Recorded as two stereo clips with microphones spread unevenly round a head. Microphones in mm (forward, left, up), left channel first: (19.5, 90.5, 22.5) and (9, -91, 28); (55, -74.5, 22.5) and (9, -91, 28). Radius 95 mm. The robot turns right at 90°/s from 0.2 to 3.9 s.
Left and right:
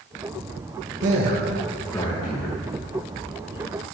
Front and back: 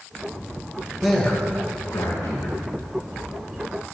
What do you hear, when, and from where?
1.0 s a man speaking: 75° right, 2.5 m; by 2.6 s 70° left, 2.5 m